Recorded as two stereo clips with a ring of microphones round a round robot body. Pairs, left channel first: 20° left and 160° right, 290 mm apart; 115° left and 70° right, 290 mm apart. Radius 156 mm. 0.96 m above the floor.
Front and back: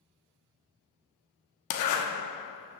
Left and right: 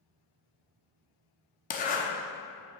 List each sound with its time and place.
1.7 s a zipper: 50° left, 0.8 m